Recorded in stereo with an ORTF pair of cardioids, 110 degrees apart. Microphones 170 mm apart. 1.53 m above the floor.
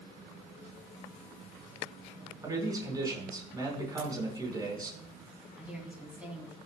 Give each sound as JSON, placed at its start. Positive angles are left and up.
{"t": 2.4, "sound": "a man speaking", "azimuth_deg": -20, "distance_m": 5.0}
{"t": 4.0, "sound": "a ringtone", "azimuth_deg": -40, "distance_m": 6.5}
{"t": 5.6, "sound": "a woman speaking", "azimuth_deg": -10, "distance_m": 3.0}